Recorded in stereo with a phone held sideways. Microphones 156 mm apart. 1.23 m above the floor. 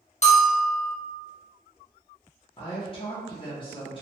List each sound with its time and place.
0.2 s a bell: 45° left (ahead or behind), 0.5 m
2.6 s a woman speaking: 35° left (ahead or behind), 0.6 m